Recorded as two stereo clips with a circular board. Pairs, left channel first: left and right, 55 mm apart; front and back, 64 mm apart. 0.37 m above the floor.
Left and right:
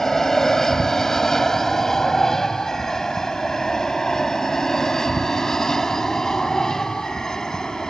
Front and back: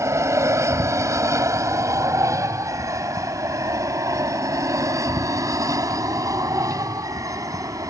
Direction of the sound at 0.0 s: 170° left.